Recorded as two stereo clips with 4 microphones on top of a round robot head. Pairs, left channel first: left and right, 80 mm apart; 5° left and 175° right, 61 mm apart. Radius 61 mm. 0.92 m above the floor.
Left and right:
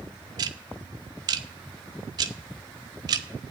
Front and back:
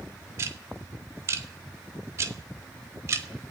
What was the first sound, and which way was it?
Ticking, 130° right.